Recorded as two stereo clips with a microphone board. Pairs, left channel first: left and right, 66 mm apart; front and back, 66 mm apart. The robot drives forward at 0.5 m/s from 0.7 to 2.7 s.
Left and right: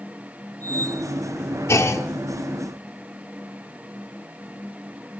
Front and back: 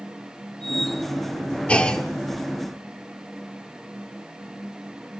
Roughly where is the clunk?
Ahead left.